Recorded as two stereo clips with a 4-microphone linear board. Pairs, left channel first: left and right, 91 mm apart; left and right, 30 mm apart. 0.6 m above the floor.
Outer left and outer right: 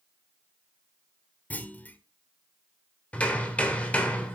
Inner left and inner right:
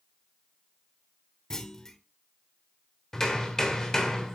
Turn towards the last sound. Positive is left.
turn(degrees=15)  # may be behind; listen again after turning